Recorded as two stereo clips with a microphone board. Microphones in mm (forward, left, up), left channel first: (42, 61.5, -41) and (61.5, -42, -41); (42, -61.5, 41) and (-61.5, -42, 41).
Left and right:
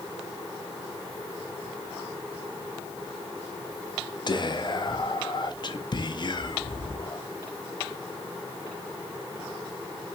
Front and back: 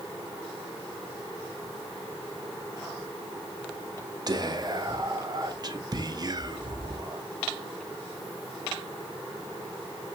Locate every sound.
4.3 s whispering: 135° left, 0.5 m